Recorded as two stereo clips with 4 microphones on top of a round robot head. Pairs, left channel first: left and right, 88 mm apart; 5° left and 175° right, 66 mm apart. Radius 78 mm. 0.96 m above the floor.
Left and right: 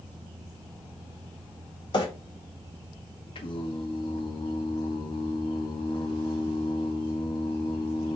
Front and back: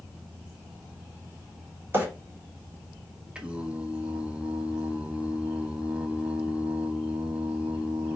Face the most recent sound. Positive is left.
turn(degrees=115)